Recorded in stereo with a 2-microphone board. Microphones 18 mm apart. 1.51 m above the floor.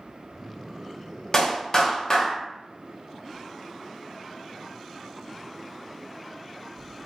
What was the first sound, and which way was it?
A clap, 35° left (ahead or behind).